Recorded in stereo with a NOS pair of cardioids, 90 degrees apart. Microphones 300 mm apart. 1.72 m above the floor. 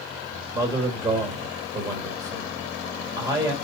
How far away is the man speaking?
About 2.5 m.